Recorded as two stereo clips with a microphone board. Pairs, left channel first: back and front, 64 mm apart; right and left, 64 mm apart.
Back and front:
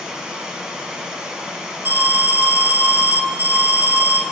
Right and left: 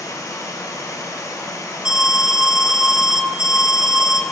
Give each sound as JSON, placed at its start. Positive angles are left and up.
{"t": 0.0, "sound": "running water", "azimuth_deg": -80, "distance_m": 1.0}
{"t": 1.9, "sound": "an alarm", "azimuth_deg": 20, "distance_m": 0.7}